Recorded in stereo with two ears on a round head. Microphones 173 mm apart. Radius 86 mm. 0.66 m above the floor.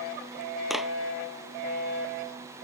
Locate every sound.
0.7 s a clap: centre (ahead or behind)